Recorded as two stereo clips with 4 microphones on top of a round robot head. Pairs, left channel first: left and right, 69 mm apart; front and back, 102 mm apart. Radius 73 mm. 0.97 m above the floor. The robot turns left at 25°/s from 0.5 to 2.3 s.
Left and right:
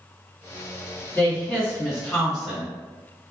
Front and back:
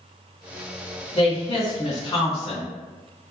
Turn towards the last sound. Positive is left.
turn(degrees=-5)